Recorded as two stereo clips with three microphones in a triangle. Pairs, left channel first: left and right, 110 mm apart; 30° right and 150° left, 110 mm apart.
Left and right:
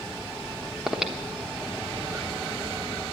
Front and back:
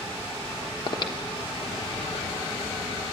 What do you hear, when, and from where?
0.9 s breathing: 5° right, 1.2 m